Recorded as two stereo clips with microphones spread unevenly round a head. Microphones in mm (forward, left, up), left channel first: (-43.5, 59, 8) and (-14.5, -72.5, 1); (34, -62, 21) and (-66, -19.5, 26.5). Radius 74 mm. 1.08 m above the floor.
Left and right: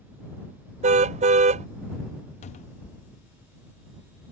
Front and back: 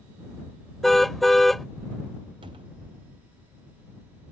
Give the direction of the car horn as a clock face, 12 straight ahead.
4 o'clock.